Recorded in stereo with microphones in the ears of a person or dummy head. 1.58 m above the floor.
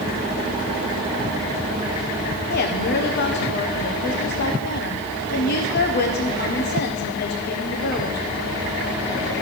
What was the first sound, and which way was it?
A woman speaking, 55° left (ahead or behind).